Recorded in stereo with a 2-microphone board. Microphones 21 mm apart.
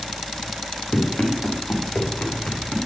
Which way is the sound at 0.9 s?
85° left.